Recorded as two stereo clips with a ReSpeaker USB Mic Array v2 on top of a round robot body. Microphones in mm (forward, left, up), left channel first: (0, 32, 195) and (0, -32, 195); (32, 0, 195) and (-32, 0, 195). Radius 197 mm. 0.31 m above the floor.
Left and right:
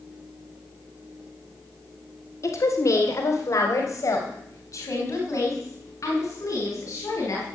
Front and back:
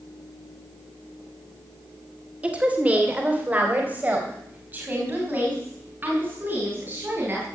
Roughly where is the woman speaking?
Behind left.